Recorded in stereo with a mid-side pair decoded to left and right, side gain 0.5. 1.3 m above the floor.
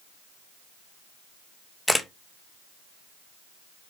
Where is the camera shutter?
5° left, 0.6 m.